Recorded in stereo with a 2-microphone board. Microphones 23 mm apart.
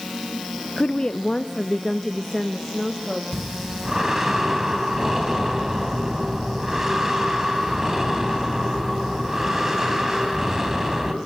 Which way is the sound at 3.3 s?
15° right (ahead or behind).